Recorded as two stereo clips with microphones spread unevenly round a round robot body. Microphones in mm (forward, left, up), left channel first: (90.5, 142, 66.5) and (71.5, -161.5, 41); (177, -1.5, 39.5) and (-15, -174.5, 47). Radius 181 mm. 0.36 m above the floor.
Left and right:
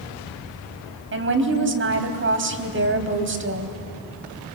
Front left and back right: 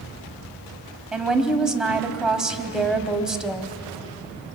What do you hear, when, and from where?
1.1 s a woman speaking: 50° right, 3 m